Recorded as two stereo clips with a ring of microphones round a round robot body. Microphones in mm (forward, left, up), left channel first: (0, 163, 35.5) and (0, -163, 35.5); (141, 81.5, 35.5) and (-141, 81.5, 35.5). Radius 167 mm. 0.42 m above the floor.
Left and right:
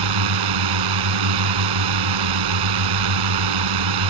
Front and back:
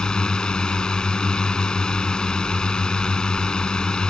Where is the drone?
90° right.